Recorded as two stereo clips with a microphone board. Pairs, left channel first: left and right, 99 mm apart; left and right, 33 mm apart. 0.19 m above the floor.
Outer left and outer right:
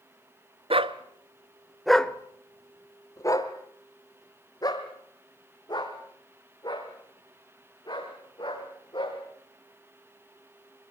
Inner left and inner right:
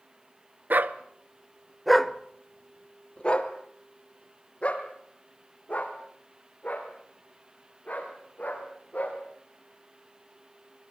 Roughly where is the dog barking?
Right.